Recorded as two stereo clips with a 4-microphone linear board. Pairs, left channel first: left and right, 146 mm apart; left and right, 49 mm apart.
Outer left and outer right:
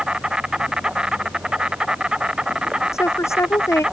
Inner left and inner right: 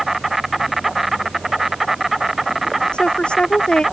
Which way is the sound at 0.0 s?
5° right (ahead or behind).